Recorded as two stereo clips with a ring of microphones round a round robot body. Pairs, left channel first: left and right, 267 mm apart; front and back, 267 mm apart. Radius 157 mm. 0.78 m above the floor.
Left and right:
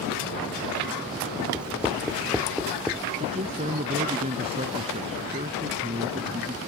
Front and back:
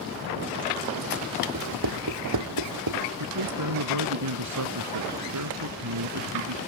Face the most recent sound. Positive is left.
turn(degrees=-160)